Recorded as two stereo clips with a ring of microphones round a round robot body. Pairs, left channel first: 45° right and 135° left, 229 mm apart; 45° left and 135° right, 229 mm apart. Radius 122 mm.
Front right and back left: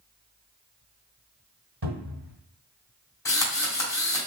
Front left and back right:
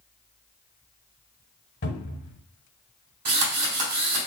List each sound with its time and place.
1.8 s a cupboard door: 95° left, 1.5 m
3.2 s a drill: 120° right, 2 m